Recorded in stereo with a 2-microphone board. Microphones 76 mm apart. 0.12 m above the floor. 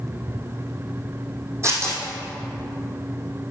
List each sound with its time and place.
1.6 s tearing paper: 35° right (ahead or behind), 2.5 m